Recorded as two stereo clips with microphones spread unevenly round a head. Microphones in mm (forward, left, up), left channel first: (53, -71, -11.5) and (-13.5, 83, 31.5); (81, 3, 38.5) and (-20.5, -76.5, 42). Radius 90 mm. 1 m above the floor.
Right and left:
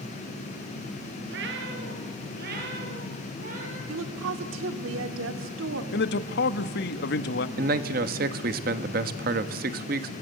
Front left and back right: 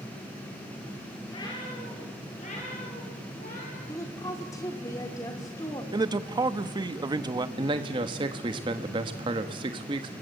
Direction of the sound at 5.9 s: 85° right.